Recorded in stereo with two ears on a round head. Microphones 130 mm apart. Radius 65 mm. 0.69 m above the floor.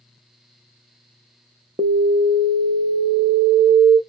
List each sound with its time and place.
1.8 s an alarm: 25° right (ahead or behind), 0.5 m